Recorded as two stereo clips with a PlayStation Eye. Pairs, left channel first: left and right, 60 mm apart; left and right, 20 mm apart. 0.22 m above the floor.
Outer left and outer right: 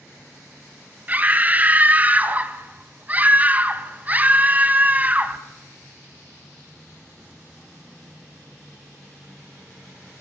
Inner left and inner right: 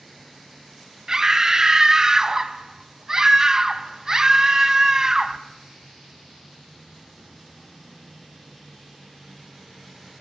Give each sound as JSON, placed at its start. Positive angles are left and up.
{"t": 1.1, "sound": "a scream", "side_deg": -25, "distance_m": 1.6}